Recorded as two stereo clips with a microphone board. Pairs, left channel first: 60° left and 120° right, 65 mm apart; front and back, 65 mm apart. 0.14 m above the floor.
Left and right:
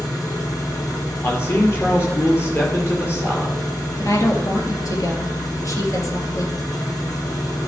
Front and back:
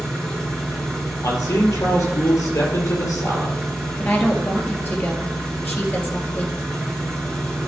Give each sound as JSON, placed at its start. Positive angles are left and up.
{"t": 0.0, "sound": "an engine running", "azimuth_deg": 75, "distance_m": 4.0}
{"t": 1.2, "sound": "a man speaking", "azimuth_deg": 15, "distance_m": 3.5}
{"t": 4.0, "sound": "a woman speaking", "azimuth_deg": 55, "distance_m": 2.5}